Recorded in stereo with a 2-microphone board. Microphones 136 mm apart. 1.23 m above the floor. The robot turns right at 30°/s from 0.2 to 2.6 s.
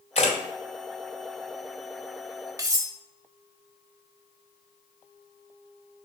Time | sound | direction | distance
0.1 | a camera shutter | 50° left (ahead or behind) | 2 m
2.6 | cutlery clinking | 25° right (ahead or behind) | 1.2 m